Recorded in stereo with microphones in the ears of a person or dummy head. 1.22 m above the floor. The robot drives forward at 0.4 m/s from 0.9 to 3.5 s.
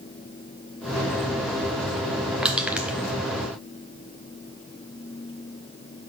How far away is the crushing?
About 0.8 m.